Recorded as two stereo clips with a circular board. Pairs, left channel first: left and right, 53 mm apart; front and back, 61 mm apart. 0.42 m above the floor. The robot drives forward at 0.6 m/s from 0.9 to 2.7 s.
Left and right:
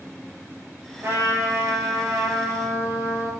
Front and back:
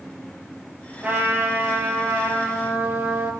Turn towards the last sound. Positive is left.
turn(degrees=-125)